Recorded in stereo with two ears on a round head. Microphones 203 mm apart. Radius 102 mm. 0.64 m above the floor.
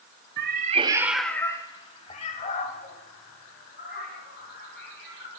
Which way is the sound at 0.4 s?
50° right (ahead or behind).